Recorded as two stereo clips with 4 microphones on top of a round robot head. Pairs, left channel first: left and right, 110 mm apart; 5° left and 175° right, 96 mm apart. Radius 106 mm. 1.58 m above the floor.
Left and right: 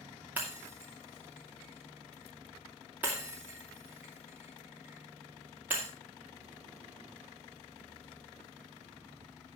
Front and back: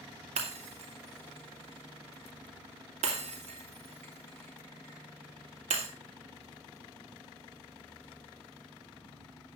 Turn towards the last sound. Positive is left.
turn(degrees=-170)